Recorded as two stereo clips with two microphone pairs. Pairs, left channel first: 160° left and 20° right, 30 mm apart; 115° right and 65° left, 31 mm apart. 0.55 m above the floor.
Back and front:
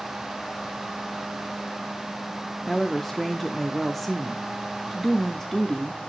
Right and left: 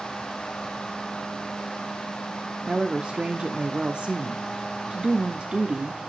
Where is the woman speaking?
75° left, 0.7 m.